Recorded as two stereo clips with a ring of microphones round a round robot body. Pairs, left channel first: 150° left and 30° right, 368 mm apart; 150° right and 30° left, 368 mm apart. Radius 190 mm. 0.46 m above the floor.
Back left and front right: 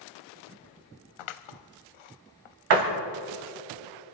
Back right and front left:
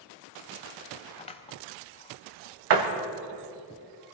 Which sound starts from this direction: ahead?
A door slam, at 2.7 s.